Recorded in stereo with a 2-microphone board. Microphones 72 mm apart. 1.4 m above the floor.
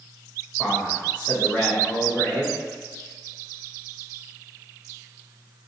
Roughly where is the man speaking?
Centre.